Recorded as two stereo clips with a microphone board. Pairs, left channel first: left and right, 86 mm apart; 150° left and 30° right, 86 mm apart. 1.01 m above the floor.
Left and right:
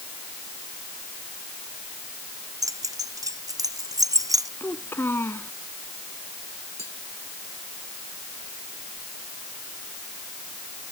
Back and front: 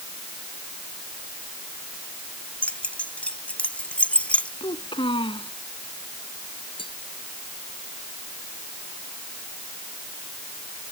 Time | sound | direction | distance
2.6 | keys jangling | 135° right | ?
4.6 | a child speaking | 155° left | ?
6.8 | tapping | 145° left | ?